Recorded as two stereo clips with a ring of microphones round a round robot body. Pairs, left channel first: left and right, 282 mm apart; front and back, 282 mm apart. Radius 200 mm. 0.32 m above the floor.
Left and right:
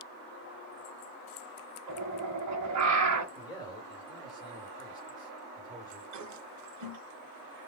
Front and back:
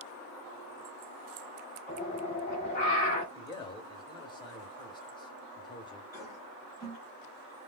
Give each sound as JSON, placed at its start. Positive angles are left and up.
{"t": 1.9, "sound": "a bird", "azimuth_deg": -65, "distance_m": 1.2}
{"t": 3.4, "sound": "a man speaking", "azimuth_deg": 40, "distance_m": 1.5}
{"t": 6.1, "sound": "a toilet flushing", "azimuth_deg": -100, "distance_m": 1.1}